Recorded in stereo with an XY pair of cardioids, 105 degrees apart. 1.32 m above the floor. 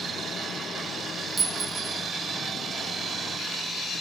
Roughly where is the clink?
Ahead right.